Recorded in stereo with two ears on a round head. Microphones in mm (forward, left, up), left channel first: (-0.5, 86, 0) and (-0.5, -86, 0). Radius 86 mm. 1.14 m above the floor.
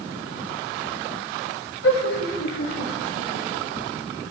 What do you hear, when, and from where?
1.8 s laughter: 85° left, 7.5 m